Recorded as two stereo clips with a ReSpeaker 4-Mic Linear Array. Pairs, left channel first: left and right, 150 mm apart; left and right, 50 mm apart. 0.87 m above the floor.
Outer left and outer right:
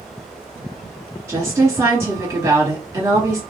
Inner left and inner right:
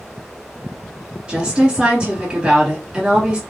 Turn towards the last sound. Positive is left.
turn(degrees=-20)  # may be behind; listen again after turning